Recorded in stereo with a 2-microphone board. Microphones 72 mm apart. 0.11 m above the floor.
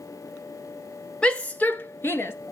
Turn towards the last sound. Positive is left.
turn(degrees=35)  # may be behind; listen again after turning